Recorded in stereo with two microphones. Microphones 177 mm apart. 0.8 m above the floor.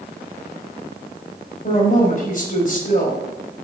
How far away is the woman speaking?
About 5 m.